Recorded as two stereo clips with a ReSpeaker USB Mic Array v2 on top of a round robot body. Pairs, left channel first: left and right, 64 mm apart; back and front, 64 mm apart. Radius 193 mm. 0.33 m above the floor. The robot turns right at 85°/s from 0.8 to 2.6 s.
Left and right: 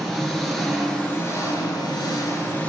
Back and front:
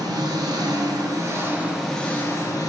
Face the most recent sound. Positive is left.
turn(degrees=155)